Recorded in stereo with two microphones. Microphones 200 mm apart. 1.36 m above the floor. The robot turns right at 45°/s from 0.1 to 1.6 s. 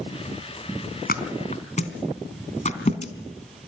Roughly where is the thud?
Left.